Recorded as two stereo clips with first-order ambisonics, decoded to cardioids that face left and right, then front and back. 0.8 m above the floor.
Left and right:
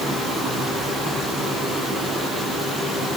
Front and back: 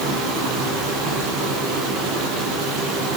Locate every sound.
0.0 s running water: 165° right, 9 m